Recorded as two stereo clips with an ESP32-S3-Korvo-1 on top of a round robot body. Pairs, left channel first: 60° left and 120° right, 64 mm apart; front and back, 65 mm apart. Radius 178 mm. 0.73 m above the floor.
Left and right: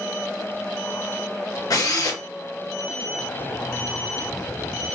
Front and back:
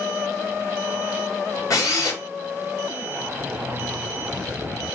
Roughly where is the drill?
Ahead left.